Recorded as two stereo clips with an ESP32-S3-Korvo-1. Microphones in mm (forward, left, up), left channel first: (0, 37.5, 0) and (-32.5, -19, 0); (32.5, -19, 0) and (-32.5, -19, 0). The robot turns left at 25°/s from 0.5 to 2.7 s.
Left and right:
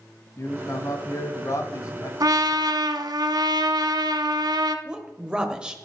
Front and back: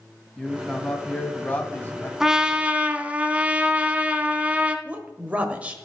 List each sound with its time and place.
0.4 s a man speaking: 85° left, 1.6 m; by 2.1 s 45° left, 1.6 m
2.2 s a trumpet: 100° right, 0.9 m; by 4.8 s 110° right, 0.9 m
4.8 s a woman speaking: 170° right, 1.2 m